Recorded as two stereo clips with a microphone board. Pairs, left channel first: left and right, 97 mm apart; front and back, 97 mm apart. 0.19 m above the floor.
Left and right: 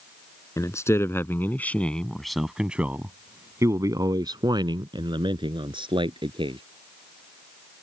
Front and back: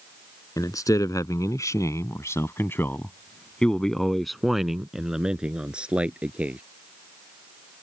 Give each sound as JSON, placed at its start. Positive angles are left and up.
{"t": 0.6, "sound": "a man speaking", "azimuth_deg": 40}